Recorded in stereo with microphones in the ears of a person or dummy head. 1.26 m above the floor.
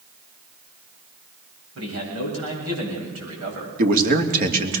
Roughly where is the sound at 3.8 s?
Right.